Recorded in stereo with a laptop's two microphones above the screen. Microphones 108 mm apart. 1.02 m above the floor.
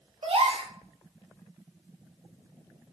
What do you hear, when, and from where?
0.2 s a gasp: 65° right (ahead or behind), 0.5 m